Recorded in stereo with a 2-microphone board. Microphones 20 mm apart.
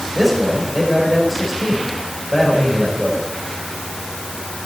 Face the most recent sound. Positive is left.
turn(degrees=-5)  # may be behind; listen again after turning